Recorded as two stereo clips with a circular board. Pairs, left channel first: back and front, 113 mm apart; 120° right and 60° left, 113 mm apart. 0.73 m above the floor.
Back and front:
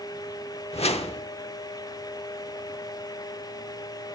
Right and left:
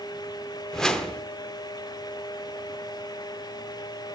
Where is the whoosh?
155° left, 0.9 m.